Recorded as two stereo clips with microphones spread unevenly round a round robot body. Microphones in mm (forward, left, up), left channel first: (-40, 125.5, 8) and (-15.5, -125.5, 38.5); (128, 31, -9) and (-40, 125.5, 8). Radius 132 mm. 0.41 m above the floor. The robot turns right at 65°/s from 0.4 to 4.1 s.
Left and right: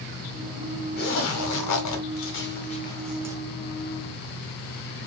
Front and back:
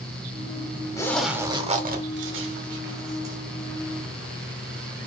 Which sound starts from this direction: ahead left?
A zipper, at 1.0 s.